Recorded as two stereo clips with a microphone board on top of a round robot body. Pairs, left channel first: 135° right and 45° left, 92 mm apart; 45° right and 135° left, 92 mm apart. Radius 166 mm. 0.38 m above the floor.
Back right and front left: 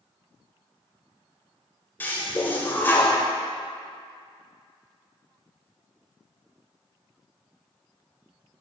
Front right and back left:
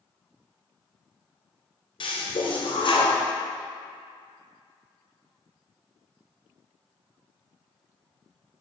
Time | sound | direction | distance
2.0 | a toilet flushing | 65° right | 1.6 m